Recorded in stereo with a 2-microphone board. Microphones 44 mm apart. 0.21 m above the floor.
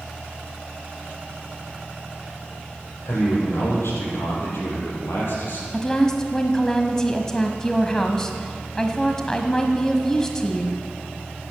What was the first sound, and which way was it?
A man speaking, 80° left.